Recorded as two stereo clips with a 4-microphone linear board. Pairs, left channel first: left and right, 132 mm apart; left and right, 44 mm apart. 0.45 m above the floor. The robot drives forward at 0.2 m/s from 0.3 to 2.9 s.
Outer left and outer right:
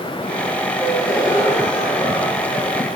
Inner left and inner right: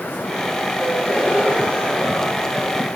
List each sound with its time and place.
0.8 s a gasp: 20° left (ahead or behind), 6.5 m